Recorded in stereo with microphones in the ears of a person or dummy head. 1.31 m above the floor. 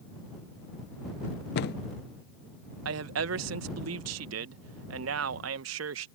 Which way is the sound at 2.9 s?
75° right (ahead or behind).